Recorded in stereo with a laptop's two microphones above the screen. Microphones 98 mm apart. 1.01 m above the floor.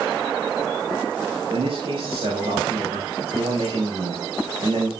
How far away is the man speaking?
About 5 m.